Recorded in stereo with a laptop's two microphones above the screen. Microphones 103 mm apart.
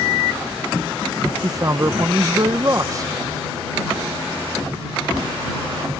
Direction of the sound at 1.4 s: 35° right (ahead or behind).